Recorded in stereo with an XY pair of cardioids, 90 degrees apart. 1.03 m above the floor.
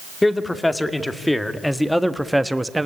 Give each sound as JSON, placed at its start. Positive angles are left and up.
{"t": 0.2, "sound": "a man speaking", "azimuth_deg": 15, "distance_m": 2.0}